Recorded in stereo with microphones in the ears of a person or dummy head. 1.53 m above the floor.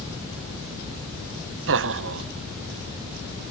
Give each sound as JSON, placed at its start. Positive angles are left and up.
{"t": 1.7, "sound": "laughter", "side_deg": -60, "distance_m": 0.5}